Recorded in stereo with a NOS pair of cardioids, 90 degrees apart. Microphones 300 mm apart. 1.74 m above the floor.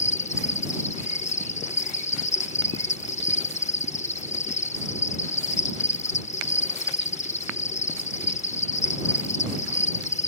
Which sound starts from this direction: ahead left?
An insect, at 0.0 s.